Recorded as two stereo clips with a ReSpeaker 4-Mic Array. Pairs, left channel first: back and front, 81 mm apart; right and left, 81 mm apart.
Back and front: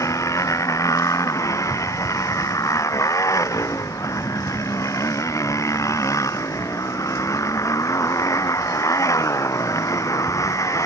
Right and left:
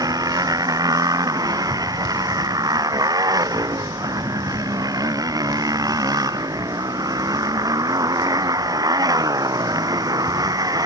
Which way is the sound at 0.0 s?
130° left.